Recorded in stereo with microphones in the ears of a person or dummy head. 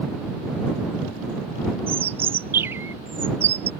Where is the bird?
15° right (ahead or behind).